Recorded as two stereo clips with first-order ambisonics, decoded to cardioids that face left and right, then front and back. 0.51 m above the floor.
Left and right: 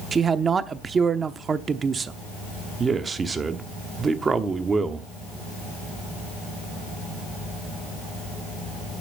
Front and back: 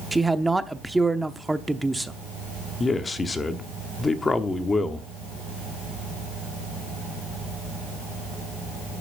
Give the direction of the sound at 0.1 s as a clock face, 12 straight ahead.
4 o'clock.